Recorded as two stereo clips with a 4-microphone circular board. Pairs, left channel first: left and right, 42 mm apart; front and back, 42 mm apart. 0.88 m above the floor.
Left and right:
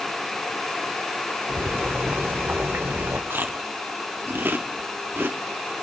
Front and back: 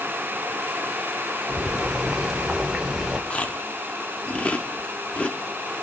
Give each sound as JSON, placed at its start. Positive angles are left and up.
{"t": 1.5, "sound": "boiling", "azimuth_deg": -105, "distance_m": 1.1}
{"t": 3.3, "sound": "chewing", "azimuth_deg": -60, "distance_m": 0.7}